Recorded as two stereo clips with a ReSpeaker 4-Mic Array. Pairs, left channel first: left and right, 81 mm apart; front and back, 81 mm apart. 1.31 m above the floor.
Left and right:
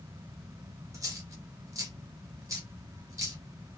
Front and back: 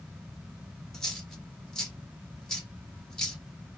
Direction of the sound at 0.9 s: 75° right.